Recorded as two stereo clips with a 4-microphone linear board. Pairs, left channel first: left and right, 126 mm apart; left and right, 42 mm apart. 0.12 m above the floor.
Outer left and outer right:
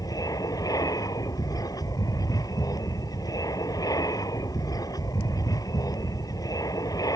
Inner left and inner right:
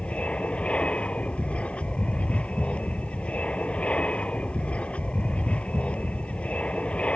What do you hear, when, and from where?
0.0 s an aircraft: 30° left (ahead or behind)